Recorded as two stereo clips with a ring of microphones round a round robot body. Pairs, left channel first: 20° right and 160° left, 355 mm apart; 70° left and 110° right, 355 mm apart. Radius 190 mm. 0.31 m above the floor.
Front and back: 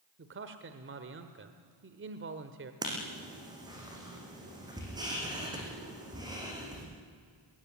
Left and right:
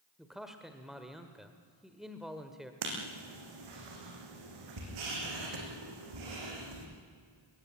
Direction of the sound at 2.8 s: 125° right.